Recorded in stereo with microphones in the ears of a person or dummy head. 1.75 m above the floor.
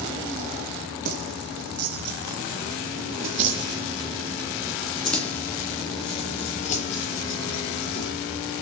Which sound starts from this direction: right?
Keys jangling, at 1.1 s.